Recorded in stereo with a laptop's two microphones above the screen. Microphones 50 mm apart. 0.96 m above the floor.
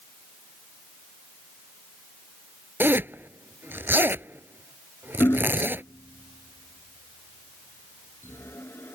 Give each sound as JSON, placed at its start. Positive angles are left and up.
{"t": 2.8, "sound": "a zipper", "side_deg": -45}
{"t": 5.2, "sound": "hammering", "side_deg": 50}